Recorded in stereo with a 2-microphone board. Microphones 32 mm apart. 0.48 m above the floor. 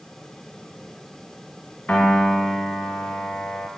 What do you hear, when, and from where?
1.9 s a piano: 60° left (ahead or behind), 0.7 m